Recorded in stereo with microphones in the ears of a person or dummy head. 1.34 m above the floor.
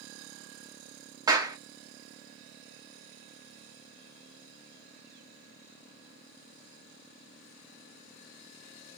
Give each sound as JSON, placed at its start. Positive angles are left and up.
{"t": 1.3, "sound": "a clap", "side_deg": -20, "distance_m": 0.6}